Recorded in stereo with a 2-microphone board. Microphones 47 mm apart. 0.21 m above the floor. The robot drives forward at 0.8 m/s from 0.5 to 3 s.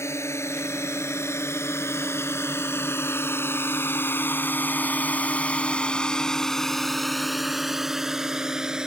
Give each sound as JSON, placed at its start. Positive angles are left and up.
{"t": 0.0, "sound": "a drone", "side_deg": 70}